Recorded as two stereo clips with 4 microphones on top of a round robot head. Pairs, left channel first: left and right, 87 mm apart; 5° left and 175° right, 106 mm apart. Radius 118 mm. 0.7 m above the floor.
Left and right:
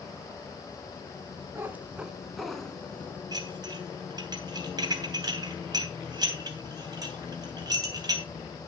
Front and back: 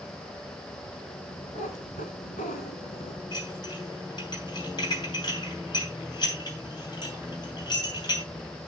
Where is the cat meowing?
25° right, 1.1 m; by 3.2 s 25° left, 1.1 m.